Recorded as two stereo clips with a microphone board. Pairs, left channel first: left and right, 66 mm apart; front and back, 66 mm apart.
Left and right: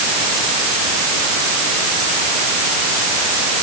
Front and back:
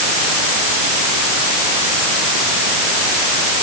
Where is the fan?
I don't hear a fan.